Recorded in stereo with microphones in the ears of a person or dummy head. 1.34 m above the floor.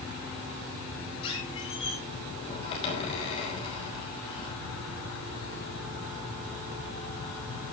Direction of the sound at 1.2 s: 35° left (ahead or behind).